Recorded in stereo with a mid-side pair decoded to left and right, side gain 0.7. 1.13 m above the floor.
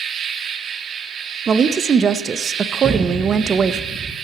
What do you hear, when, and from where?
0.0 s an insect: 45° right, 1.2 m
1.5 s a woman speaking: 30° right, 0.7 m
2.8 s an explosion: 20° right, 1.4 m